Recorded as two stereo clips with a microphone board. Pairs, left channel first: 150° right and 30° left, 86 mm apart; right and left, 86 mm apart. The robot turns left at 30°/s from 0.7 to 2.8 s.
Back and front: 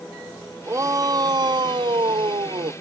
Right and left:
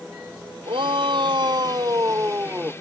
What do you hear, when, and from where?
0.7 s a shout: 85° left; by 2.7 s 25° left